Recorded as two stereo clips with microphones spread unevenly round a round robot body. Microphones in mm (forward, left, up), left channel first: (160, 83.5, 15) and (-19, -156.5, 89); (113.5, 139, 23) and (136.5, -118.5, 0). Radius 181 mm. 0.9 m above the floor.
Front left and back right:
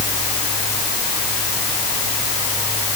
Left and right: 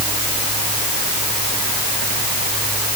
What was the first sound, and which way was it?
Only background noise.